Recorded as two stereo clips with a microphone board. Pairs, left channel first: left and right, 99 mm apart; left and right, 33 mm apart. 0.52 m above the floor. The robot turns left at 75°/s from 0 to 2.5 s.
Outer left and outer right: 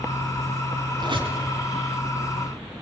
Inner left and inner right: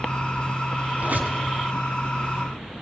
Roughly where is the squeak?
Right.